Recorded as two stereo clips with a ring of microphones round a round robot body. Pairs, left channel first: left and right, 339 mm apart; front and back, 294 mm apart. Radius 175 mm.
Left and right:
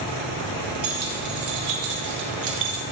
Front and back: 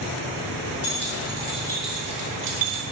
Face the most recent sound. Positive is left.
turn(degrees=-150)